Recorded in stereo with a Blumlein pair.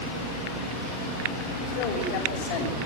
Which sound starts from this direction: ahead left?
A man speaking, at 1.7 s.